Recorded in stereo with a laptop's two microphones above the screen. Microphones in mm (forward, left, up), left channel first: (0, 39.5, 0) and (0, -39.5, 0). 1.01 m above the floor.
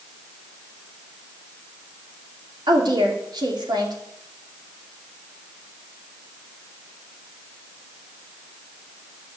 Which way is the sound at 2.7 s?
65° right (ahead or behind).